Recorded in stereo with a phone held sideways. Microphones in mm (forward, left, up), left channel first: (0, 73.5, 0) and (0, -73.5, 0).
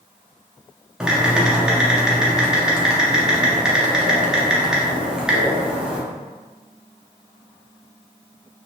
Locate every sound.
1.0 s typing on a keyboard: 5° right (ahead or behind), 0.6 m